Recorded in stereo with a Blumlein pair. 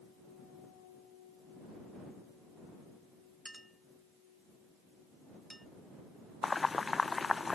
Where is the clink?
Straight ahead.